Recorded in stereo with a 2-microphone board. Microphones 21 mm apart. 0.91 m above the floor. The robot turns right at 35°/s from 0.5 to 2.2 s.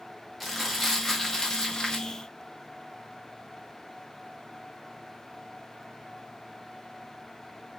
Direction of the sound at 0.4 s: Straight ahead.